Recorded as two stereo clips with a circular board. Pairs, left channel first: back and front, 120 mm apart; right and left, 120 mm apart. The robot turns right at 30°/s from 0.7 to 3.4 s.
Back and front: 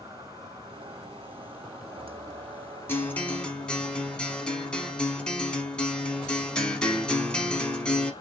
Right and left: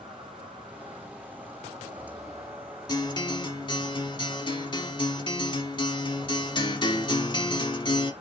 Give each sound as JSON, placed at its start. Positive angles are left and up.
{"t": 0.0, "sound": "an insect", "azimuth_deg": 50, "distance_m": 1.5}
{"t": 2.9, "sound": "a guitar", "azimuth_deg": -115, "distance_m": 0.8}